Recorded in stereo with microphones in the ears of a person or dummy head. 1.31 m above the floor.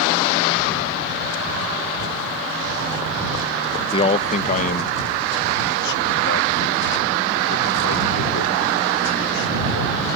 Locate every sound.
3.9 s a man speaking: 20° left (ahead or behind); by 10.1 s 70° left (ahead or behind)